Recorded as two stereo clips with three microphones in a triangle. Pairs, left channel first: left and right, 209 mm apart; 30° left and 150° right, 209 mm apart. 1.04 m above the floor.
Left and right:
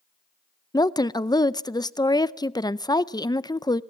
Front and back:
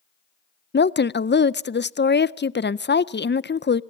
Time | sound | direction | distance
0.7 | a woman speaking | 25° left | 0.5 m